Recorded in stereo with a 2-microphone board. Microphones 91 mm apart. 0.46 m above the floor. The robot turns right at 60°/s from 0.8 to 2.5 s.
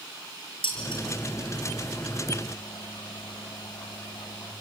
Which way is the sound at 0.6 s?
80° left.